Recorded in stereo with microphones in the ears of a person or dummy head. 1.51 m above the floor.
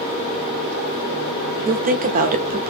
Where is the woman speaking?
40° right (ahead or behind), 0.6 m.